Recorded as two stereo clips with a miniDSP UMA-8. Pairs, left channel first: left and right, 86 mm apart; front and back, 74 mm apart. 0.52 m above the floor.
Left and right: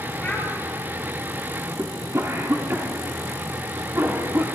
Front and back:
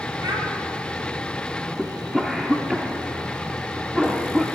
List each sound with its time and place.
0.2 s a child speaking: 165° left, 3.5 m
1.8 s a cough: 95° right, 1.3 m